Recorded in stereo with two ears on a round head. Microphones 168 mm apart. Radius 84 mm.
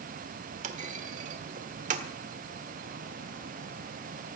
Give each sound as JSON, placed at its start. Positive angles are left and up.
{"t": 0.6, "sound": "a clunk", "side_deg": -40, "distance_m": 1.6}